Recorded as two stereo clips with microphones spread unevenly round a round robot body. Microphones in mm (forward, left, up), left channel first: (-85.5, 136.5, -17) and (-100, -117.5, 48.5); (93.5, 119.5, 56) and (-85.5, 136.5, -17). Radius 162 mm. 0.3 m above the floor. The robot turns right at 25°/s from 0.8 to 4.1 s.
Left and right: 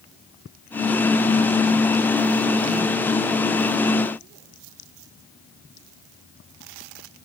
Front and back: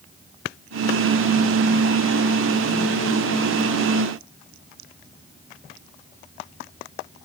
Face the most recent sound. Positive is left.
No sound to turn to.